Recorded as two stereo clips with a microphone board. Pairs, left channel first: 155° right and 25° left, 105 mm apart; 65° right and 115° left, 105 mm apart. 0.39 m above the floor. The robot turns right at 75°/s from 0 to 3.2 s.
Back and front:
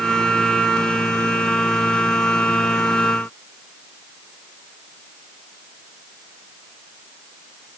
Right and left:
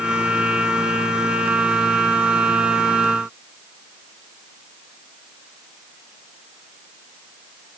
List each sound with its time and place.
Only background noise.